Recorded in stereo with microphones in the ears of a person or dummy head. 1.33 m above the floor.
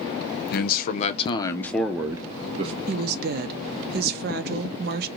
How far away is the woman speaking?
About 0.5 m.